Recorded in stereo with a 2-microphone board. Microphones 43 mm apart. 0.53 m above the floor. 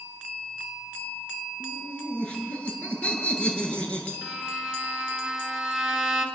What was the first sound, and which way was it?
Laughter, 25° left (ahead or behind).